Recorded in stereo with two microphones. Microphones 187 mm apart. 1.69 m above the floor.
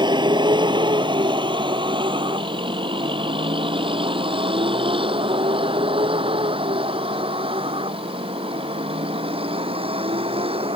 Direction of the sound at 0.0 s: 25° right (ahead or behind).